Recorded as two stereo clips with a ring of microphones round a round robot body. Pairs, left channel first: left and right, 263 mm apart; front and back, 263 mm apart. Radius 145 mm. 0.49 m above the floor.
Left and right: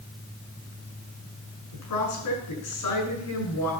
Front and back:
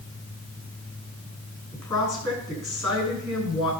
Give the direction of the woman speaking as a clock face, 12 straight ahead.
10 o'clock.